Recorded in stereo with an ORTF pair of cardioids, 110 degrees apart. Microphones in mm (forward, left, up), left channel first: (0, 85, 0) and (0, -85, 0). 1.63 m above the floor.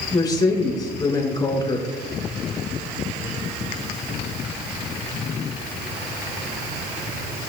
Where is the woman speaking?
25° left, 4.5 m.